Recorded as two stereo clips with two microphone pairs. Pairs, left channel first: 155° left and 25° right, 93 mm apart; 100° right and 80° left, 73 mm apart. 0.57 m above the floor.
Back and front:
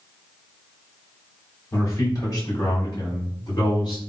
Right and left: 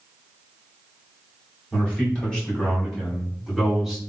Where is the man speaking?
165° right, 1.6 m; by 4.0 s 175° left, 2.5 m.